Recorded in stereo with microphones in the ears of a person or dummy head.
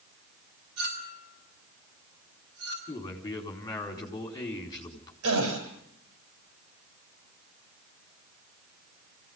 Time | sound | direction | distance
0.8 | a clink | 75° right (ahead or behind) | 6 m
2.9 | a man speaking | 20° left (ahead or behind) | 4.5 m
5.2 | a gasp | 90° right | 7.5 m